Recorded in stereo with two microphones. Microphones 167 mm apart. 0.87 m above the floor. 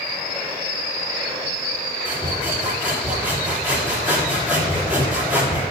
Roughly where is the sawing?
Centre.